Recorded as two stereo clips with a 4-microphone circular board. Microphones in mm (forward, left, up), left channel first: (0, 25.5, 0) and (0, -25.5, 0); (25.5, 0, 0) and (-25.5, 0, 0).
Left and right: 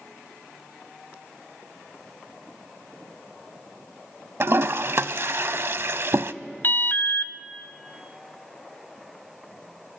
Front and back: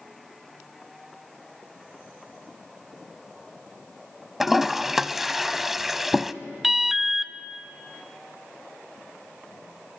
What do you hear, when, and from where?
4.4 s a toilet flushing: 95° right, 0.7 m
6.6 s an alarm: 95° left, 0.8 m